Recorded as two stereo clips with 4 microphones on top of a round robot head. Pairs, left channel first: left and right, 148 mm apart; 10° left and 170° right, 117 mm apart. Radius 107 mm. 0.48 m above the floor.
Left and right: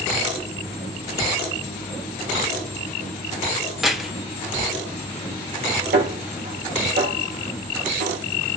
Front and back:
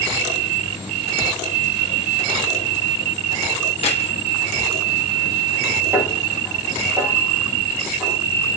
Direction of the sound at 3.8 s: 5° right.